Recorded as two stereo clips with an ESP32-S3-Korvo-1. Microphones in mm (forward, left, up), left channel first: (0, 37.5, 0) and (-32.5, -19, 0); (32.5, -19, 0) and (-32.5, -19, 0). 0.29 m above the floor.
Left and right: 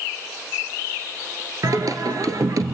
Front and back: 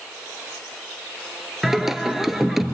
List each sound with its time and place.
1.6 s singing: 95° right, 1.4 m